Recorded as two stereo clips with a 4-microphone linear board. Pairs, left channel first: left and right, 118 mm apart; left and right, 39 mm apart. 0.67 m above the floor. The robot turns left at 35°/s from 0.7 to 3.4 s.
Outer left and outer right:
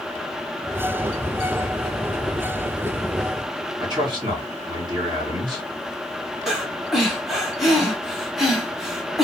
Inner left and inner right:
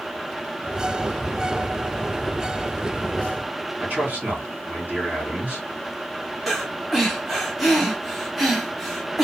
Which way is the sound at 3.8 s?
40° right (ahead or behind).